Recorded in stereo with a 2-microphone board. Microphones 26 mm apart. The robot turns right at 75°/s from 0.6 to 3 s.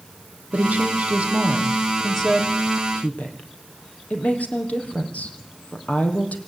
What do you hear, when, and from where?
0.5 s a woman speaking: 65° right (ahead or behind), 3.5 m; by 6.4 s 65° left (ahead or behind), 3.5 m